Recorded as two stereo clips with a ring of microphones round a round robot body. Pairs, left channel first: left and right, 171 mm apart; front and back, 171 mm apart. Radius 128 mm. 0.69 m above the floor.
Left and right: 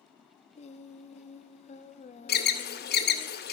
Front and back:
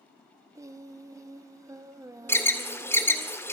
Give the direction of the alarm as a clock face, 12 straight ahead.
9 o'clock.